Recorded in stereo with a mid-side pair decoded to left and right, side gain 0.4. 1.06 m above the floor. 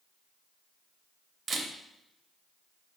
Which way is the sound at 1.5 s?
55° right.